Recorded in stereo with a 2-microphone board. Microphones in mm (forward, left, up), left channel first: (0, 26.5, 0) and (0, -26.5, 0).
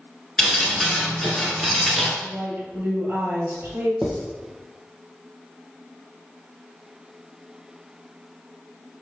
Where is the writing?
5° left (ahead or behind), 1.5 m.